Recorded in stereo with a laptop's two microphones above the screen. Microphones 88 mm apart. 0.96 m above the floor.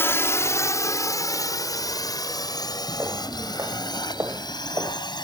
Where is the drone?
25° left (ahead or behind); by 5.2 s 55° left (ahead or behind).